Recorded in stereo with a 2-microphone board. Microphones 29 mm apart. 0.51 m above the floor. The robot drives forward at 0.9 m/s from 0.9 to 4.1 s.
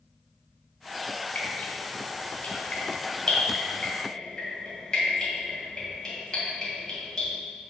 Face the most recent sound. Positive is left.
turn(degrees=20)  # may be behind; listen again after turning